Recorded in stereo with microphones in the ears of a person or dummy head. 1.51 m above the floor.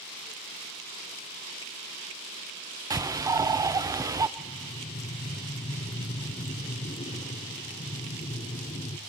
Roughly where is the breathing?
Left.